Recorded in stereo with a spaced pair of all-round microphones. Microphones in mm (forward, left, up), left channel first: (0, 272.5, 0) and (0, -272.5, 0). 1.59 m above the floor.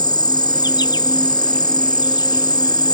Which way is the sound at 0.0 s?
10° left (ahead or behind).